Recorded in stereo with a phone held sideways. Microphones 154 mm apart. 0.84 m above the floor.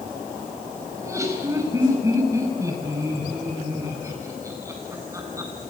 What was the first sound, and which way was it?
Laughter, 20° right (ahead or behind).